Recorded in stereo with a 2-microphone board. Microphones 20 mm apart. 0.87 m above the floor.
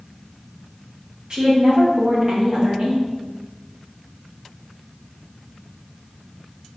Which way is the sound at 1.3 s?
45° right (ahead or behind).